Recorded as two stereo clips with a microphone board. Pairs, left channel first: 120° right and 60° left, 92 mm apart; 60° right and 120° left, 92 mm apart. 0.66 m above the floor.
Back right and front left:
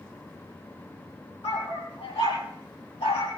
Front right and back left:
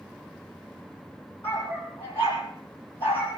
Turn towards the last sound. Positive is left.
turn(degrees=-130)